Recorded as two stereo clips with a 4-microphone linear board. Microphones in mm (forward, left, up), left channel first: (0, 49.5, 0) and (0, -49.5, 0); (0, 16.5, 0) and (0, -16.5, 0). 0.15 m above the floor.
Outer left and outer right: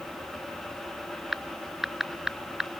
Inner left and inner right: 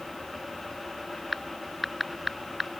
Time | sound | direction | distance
1.3 | typing on a keyboard | 5° right (ahead or behind) | ?